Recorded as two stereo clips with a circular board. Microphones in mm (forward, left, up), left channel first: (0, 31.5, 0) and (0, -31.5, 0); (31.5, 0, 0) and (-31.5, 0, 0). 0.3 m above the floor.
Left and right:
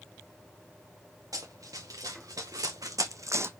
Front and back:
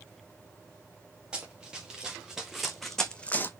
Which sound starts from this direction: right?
Running footsteps, at 1.3 s.